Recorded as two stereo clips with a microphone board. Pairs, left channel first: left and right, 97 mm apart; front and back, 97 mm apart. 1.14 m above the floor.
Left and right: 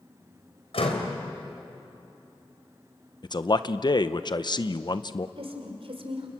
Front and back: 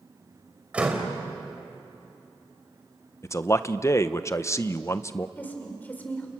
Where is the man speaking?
55° left, 0.8 m.